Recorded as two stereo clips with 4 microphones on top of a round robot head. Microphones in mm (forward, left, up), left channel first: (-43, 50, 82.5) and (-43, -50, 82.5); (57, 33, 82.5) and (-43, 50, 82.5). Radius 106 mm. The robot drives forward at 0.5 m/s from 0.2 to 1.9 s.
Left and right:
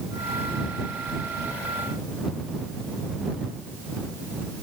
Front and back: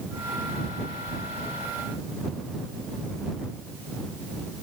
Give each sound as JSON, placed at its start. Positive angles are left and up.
{"t": 1.1, "sound": "chewing", "azimuth_deg": -80, "distance_m": 5.0}